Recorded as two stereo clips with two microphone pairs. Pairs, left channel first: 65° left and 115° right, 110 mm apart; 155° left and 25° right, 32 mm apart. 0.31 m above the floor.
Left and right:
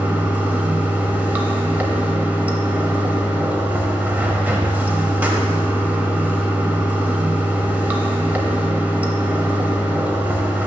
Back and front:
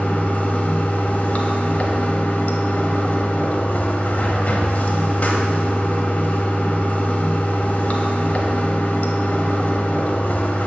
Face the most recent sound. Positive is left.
turn(degrees=175)